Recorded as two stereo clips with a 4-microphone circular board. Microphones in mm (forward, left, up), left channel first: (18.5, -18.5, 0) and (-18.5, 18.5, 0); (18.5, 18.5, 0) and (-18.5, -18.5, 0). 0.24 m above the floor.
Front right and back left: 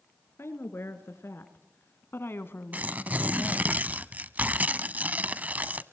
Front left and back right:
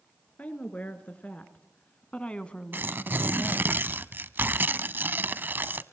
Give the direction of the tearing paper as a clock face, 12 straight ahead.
6 o'clock.